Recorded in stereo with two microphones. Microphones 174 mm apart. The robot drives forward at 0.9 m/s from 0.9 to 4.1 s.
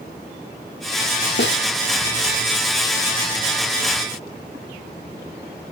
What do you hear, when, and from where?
1.4 s a snare drum: 85° left, 1.9 m; by 1.6 s 80° left, 2.0 m